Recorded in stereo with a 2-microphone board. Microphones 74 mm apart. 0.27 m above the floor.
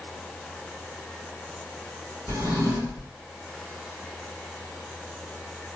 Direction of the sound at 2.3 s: 45° right (ahead or behind).